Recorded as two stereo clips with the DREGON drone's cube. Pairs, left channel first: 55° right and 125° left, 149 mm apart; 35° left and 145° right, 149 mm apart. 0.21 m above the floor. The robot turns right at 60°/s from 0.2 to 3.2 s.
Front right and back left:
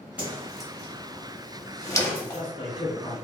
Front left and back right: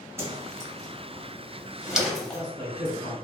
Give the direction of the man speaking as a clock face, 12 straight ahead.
2 o'clock.